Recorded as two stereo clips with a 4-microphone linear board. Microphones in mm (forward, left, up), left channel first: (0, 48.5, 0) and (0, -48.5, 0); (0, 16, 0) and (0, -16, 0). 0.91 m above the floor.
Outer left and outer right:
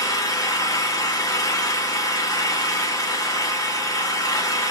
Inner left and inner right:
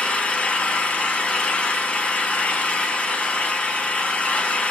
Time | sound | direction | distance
0.0 | an engine running | 35° left (ahead or behind) | 0.9 m